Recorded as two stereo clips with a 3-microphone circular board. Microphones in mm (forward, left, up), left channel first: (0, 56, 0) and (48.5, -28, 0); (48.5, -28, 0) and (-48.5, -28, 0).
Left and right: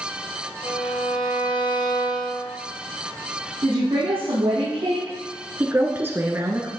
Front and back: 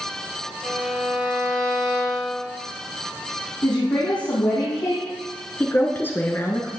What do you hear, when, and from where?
0.6 s a violin: 95° left, 2.5 m
3.6 s a woman speaking: 35° right, 3.5 m
5.6 s a woman speaking: 30° right, 1.1 m